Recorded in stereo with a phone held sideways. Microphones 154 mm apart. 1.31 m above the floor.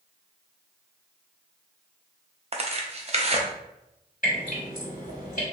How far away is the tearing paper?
About 0.5 m.